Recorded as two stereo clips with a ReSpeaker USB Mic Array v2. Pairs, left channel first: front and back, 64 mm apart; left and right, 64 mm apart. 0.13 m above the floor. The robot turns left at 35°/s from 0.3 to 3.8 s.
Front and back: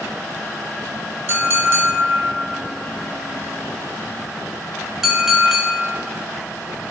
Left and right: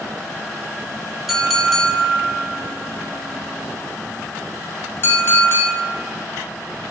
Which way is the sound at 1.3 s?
175° right.